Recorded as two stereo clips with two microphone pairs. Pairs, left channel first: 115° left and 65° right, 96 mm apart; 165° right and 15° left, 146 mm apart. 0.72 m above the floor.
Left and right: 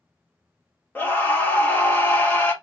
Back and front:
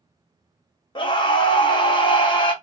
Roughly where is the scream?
Behind.